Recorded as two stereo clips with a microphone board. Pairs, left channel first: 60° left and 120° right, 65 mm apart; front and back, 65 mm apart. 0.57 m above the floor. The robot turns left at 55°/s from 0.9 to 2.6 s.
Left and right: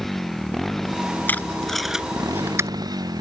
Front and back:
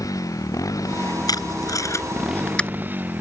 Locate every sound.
0.0 s a motorcycle: 25° right; by 3.2 s 120° right
1.3 s tape being pulled: straight ahead; by 2.7 s 70° right